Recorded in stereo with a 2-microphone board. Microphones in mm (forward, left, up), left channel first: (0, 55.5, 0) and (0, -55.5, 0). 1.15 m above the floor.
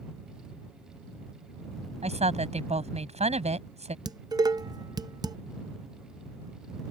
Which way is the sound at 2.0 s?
85° right.